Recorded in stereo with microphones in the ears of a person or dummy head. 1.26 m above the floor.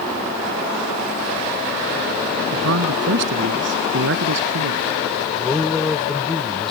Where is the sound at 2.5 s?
65° right (ahead or behind).